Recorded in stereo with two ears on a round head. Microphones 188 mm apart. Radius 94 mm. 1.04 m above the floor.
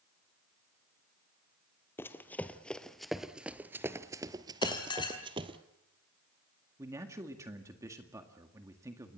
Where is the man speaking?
15° right (ahead or behind), 1.8 m.